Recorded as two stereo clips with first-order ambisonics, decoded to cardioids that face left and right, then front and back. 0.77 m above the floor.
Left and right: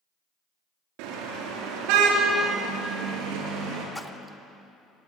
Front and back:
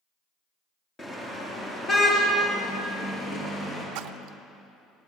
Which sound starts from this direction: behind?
A splash, at 4.0 s.